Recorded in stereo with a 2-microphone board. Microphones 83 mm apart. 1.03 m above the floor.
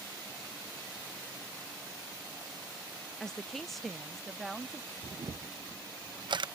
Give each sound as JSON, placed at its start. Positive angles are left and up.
{"t": 3.2, "sound": "a woman speaking", "side_deg": 5}
{"t": 5.0, "sound": "a camera shutter", "side_deg": -70}